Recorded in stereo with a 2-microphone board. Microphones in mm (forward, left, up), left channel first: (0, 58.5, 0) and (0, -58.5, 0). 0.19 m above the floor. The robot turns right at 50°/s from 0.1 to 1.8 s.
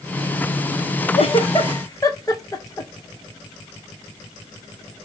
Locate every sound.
1.1 s a giggle: 60° left (ahead or behind), 1.7 m; by 2.9 s 30° left (ahead or behind), 1.7 m